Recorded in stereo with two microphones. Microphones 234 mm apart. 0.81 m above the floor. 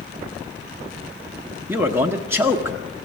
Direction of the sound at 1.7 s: 10° right (ahead or behind).